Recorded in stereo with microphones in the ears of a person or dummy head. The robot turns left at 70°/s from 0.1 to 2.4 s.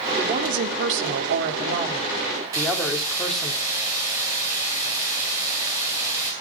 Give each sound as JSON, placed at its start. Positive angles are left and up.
{"t": 0.2, "sound": "a woman speaking", "azimuth_deg": -25, "distance_m": 3.5}
{"t": 2.5, "sound": "a hiss", "side_deg": -20, "distance_m": 9.5}